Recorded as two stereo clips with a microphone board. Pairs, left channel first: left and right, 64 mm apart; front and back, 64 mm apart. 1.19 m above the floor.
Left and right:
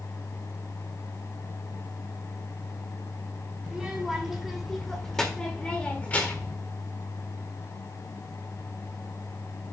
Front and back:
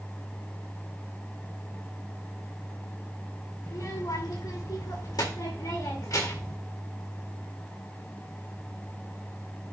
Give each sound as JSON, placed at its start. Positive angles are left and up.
{"t": 3.6, "sound": "a child speaking", "azimuth_deg": -10, "distance_m": 2.5}